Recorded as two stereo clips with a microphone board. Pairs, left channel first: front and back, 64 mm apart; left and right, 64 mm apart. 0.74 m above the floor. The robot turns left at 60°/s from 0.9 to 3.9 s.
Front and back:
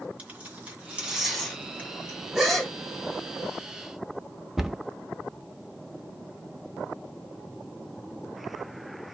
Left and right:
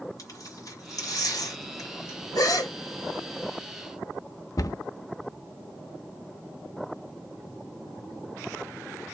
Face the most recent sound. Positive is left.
turn(degrees=95)